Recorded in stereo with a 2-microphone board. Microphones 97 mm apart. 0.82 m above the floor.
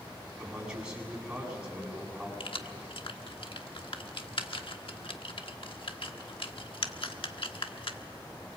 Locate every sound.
0.4 s a man speaking: 5° right (ahead or behind), 8 m
2.4 s keys jangling: 65° left (ahead or behind), 1.2 m